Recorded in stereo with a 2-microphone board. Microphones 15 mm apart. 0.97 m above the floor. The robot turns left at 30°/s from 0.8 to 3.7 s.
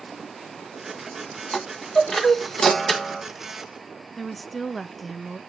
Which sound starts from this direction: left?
A chime, at 1.5 s.